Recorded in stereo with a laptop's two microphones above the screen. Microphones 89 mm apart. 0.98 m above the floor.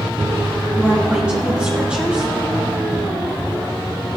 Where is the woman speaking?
10° right (ahead or behind), 5 m.